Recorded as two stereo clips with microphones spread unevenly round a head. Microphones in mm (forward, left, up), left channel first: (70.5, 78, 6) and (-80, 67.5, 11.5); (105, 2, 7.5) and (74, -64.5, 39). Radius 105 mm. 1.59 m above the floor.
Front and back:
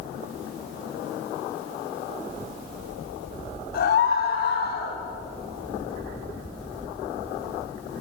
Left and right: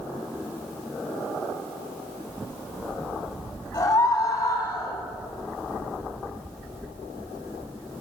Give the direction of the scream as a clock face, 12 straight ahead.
11 o'clock.